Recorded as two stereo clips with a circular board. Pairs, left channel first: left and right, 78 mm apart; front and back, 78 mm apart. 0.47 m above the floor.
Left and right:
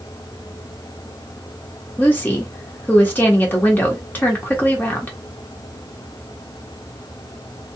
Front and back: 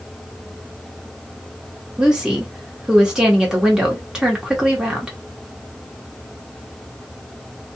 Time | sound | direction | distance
2.0 | a woman speaking | 110° left | 0.9 m